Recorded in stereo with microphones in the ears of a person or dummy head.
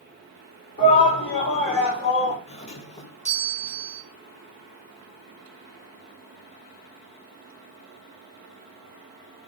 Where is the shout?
45° left (ahead or behind), 3.5 m; by 2.4 s 30° left (ahead or behind), 3 m.